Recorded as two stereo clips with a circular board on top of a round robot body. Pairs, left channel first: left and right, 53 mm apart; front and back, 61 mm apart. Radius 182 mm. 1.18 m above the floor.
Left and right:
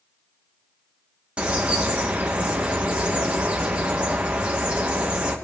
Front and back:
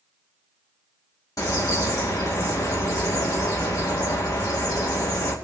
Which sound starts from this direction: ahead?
A bird, at 1.4 s.